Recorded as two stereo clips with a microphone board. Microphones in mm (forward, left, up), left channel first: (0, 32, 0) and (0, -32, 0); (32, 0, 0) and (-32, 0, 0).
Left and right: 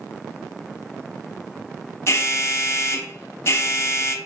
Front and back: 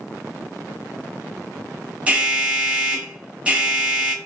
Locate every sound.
2.1 s an alarm: 110° left, 0.9 m